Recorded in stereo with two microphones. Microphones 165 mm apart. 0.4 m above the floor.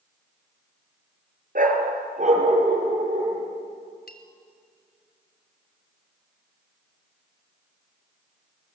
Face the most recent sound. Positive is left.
turn(degrees=70)  # may be behind; listen again after turning